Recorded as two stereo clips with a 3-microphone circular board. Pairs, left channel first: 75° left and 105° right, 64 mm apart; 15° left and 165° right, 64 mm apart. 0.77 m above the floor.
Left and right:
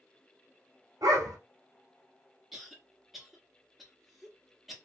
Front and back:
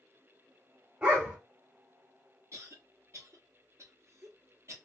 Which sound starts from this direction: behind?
A cough, at 2.5 s.